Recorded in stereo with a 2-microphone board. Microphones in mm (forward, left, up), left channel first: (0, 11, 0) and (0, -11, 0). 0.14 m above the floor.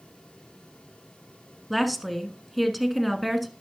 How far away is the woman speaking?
About 1.2 m.